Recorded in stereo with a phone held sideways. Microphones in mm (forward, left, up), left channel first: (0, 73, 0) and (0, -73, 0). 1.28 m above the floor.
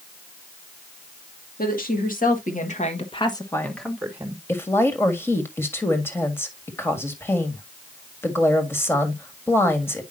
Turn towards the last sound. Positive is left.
turn(degrees=15)  # may be behind; listen again after turning